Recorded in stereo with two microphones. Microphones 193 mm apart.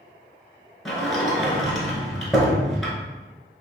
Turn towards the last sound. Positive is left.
turn(degrees=0)  # may be behind; listen again after turning